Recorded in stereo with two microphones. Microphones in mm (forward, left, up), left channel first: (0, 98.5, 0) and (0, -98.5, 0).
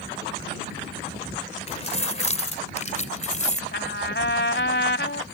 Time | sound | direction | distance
1.7 | keys jangling | 30° left (ahead or behind) | ?
3.7 | a trumpet | 60° left (ahead or behind) | ?